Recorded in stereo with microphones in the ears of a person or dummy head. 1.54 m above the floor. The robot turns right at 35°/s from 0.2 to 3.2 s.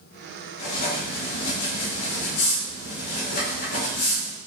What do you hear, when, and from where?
0.6 s writing: 40° left, 1.6 m; by 4.4 s 130° left, 1.6 m